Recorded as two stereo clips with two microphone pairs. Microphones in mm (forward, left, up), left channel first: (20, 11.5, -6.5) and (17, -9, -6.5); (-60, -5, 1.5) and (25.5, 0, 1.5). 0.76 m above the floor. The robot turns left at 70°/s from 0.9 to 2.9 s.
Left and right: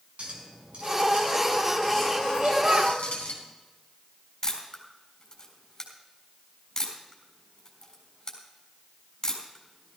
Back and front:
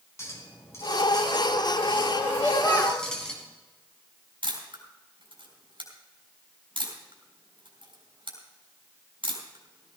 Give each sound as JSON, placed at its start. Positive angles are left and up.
{"t": 0.2, "sound": "a clink", "azimuth_deg": -120, "distance_m": 4.0}
{"t": 2.3, "sound": "a child speaking", "azimuth_deg": -90, "distance_m": 4.0}
{"t": 4.4, "sound": "a camera shutter", "azimuth_deg": 30, "distance_m": 3.5}